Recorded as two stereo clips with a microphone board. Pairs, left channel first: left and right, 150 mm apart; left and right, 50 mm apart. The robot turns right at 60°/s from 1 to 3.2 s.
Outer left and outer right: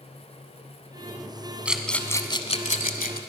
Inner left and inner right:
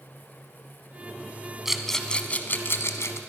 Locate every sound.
1.6 s a rattle: 10° right (ahead or behind), 1.0 m; by 3.2 s 75° left (ahead or behind), 1.0 m